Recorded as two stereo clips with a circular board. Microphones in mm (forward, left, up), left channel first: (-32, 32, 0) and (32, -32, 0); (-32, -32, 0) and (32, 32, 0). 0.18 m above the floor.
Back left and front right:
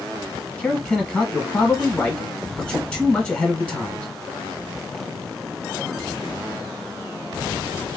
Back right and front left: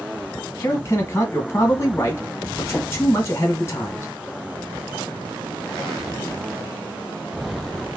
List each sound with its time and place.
0.6 s a man speaking: 155° right, 1.1 m